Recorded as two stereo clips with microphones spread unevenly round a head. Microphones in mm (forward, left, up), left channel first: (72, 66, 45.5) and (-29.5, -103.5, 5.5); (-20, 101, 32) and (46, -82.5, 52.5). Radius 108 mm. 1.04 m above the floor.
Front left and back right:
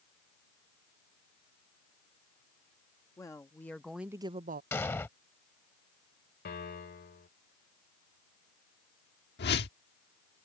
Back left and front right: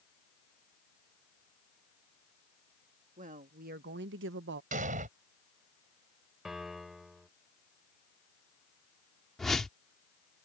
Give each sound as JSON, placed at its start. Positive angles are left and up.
{"t": 3.2, "sound": "a woman speaking", "azimuth_deg": -15}
{"t": 4.7, "sound": "an explosion", "azimuth_deg": -20}
{"t": 6.5, "sound": "a piano", "azimuth_deg": 20}
{"t": 9.4, "sound": "a whoosh", "azimuth_deg": 20}